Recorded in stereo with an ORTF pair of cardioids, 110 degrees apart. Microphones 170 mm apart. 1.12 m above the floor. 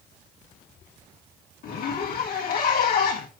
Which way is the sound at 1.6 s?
60° left.